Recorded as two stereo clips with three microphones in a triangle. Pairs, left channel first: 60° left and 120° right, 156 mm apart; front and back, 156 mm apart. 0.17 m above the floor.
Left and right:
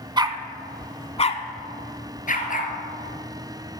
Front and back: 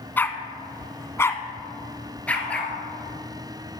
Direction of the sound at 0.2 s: 70° right.